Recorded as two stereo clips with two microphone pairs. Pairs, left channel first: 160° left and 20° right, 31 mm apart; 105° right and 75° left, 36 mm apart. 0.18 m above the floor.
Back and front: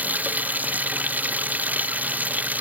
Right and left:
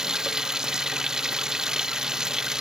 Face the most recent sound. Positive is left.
turn(degrees=0)